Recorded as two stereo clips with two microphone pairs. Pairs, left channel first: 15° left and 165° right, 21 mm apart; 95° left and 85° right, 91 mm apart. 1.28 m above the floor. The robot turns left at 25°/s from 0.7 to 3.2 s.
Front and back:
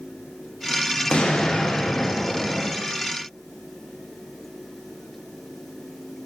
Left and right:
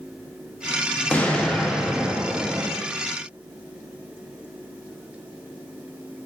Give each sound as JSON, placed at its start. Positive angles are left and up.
{"t": 1.1, "sound": "an explosion", "azimuth_deg": 25, "distance_m": 0.6}